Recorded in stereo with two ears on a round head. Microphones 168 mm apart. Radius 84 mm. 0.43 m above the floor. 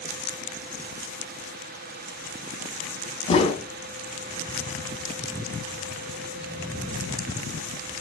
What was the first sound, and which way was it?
A whoosh, 30° left (ahead or behind).